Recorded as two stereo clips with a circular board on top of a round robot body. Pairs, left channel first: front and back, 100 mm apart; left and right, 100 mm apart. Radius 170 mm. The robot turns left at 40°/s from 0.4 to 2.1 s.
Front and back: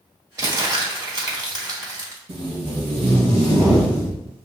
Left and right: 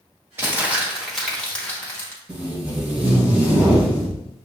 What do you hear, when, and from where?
0.4 s crumpling: 145° right, 1.9 m; by 2.2 s 145° left, 1.9 m
2.3 s tape being pulled: 165° right, 1.7 m